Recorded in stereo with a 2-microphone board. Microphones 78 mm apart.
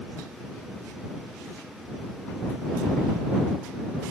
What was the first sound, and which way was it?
Only background noise.